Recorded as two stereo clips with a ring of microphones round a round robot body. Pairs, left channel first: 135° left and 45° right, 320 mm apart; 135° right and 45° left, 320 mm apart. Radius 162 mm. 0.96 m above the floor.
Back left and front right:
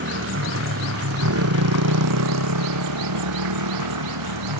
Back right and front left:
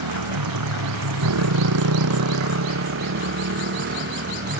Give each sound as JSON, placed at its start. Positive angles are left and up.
{"t": 0.0, "sound": "a motorcycle", "azimuth_deg": 10}